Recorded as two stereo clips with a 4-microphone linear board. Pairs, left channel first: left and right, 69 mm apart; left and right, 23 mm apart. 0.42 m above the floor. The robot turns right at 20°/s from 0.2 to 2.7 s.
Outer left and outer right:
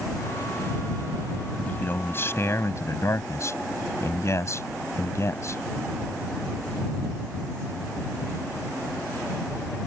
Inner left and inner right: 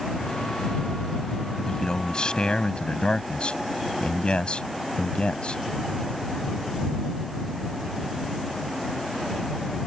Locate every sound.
1.6 s a man speaking: 25° left (ahead or behind); by 5.6 s 45° left (ahead or behind)